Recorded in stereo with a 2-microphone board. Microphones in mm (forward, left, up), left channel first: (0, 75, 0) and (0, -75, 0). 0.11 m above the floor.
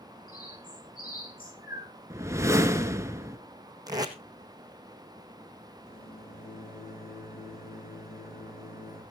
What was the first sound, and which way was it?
A bird, 75° left (ahead or behind).